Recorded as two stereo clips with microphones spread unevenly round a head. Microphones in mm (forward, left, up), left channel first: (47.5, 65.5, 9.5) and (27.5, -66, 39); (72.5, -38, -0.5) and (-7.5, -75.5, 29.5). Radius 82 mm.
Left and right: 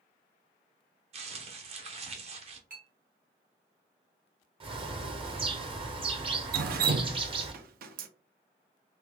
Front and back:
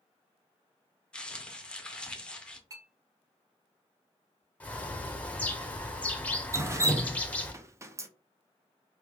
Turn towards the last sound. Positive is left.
turn(degrees=-90)